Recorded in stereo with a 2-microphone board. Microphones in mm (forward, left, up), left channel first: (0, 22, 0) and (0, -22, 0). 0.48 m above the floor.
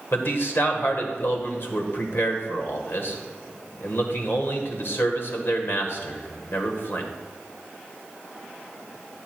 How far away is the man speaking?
About 1.3 m.